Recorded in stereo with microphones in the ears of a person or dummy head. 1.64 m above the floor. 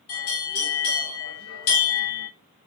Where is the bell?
85° left, 4 m.